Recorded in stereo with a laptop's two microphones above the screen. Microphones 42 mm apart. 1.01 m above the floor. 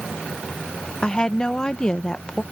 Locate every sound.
1.0 s a woman speaking: 20° left (ahead or behind)